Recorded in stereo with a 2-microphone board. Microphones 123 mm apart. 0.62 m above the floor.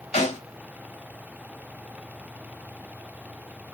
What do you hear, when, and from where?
0.1 s a snare drum: 75° left (ahead or behind), 4.5 m